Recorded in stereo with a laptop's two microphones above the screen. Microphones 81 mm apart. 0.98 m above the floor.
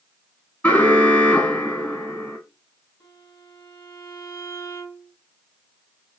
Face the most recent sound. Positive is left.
turn(degrees=75)  # may be behind; listen again after turning